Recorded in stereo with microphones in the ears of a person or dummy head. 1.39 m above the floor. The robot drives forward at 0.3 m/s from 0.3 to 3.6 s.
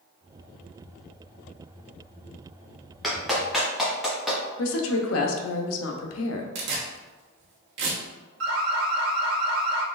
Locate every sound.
3.0 s a clap: centre (ahead or behind), 0.9 m
4.6 s a woman speaking: 65° left (ahead or behind), 0.7 m
6.5 s tearing paper: 75° right (ahead or behind), 1.3 m
8.4 s an alarm: 70° right (ahead or behind), 0.9 m